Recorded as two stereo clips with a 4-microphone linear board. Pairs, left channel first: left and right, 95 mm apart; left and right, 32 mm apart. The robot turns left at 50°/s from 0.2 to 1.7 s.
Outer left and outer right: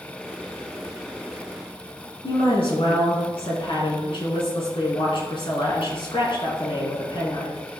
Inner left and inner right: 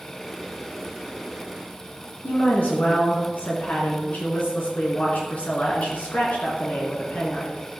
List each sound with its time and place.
2.2 s a woman speaking: 60° left (ahead or behind), 3.5 m